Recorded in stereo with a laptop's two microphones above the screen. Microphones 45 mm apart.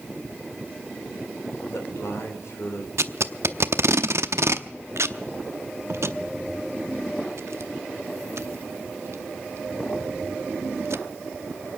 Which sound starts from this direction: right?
Tape being pulled, at 3.0 s.